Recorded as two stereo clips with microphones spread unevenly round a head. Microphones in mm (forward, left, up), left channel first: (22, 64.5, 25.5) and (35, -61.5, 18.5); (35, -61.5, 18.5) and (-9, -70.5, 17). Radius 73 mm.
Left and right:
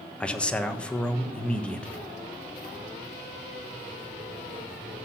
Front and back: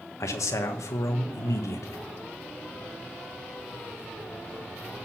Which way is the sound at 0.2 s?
15° left.